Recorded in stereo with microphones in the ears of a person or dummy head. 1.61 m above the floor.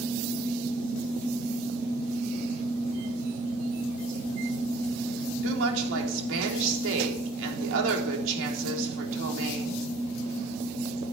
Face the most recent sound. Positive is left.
turn(degrees=-70)  # may be behind; listen again after turning